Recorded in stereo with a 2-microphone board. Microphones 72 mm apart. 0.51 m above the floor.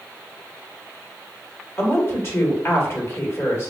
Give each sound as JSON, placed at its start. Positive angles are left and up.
{"t": 1.8, "sound": "a woman speaking", "side_deg": 35, "distance_m": 1.5}